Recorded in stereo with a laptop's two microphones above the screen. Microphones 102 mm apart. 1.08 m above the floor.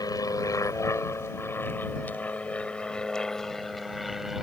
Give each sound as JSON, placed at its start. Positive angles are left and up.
{"t": 0.0, "sound": "an aircraft", "side_deg": 35}